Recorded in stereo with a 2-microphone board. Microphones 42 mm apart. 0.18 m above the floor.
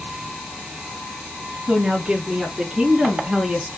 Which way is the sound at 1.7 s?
15° right (ahead or behind).